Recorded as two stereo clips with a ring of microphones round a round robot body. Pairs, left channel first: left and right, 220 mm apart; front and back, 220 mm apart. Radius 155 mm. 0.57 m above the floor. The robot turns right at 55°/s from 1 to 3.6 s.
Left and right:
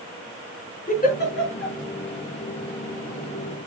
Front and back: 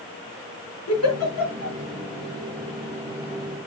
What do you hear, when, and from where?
0.9 s a giggle: 35° left, 5 m; by 1.8 s 75° left, 5 m